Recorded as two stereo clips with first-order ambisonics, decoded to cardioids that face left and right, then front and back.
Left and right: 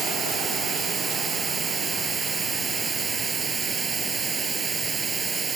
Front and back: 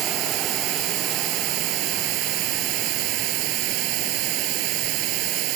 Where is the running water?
155° right.